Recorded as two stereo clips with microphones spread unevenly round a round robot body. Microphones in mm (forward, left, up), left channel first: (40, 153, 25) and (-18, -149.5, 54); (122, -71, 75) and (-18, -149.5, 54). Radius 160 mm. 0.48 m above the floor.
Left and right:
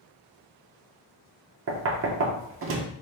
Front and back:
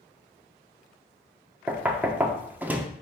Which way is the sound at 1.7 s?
90° right.